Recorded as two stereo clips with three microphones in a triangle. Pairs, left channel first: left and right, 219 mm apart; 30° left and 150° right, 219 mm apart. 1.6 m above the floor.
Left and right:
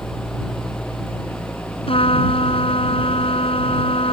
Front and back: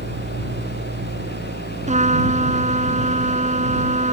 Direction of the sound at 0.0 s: Straight behind.